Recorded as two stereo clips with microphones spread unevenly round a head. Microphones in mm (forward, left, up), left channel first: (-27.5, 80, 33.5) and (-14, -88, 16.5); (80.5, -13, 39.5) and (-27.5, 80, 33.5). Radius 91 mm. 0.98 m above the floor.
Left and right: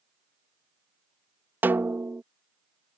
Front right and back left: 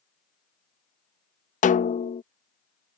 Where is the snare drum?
5° right.